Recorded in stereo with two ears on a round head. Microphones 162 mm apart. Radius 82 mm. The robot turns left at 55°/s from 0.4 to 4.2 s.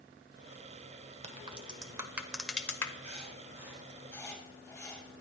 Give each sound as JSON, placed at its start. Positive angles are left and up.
{"t": 1.2, "sound": "a crack", "side_deg": -35, "distance_m": 1.2}
{"t": 3.0, "sound": "writing", "side_deg": -45, "distance_m": 5.5}